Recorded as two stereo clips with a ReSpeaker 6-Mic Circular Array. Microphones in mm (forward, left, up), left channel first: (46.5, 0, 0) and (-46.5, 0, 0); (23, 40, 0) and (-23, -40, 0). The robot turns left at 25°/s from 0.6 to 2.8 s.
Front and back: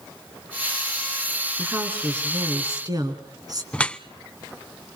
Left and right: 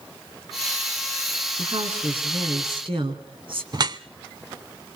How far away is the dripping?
About 0.6 m.